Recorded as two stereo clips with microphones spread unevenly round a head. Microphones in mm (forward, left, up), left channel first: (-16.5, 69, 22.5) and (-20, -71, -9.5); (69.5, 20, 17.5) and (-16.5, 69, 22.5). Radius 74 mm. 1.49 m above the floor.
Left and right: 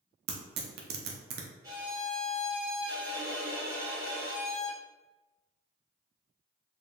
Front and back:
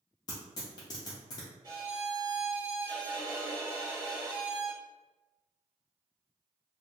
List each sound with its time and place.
0.3 s tearing paper: 90° right, 0.5 m
1.6 s a violin: 165° right, 1.1 m